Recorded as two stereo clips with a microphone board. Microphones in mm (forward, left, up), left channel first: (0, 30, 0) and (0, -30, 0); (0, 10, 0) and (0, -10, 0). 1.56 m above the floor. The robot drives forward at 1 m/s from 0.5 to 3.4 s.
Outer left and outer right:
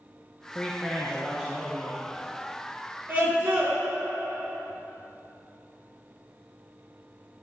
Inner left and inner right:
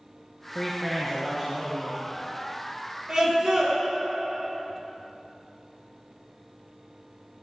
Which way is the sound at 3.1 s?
30° right (ahead or behind).